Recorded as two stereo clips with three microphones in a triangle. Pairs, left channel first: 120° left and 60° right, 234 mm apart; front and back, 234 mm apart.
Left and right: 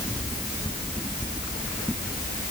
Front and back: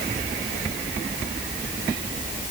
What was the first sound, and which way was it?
Only background noise.